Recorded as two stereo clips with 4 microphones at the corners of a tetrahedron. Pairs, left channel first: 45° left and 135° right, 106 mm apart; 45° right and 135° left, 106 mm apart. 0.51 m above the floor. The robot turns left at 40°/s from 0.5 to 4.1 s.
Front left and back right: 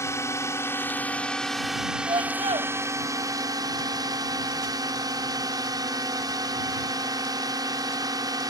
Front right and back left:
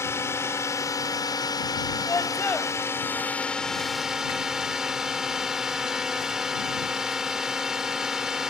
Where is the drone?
Straight ahead; by 8.5 s 145° right.